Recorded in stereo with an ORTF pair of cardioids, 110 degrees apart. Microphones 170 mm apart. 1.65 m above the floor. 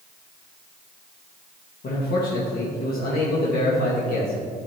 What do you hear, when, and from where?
1.8 s a man speaking: 60° left, 1.7 m